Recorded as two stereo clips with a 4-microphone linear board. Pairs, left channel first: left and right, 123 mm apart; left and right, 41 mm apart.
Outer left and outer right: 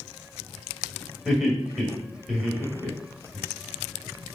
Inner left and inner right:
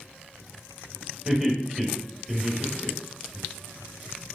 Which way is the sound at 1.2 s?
Centre (ahead or behind).